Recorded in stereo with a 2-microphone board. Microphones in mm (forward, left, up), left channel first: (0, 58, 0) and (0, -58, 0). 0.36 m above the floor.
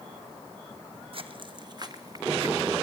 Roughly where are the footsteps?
Right.